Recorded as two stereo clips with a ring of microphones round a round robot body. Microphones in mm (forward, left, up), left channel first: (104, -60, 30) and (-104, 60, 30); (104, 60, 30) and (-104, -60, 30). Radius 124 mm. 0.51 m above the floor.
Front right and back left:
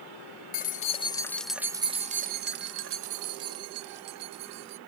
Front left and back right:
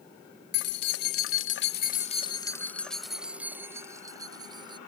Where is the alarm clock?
No alarm clock in this recording.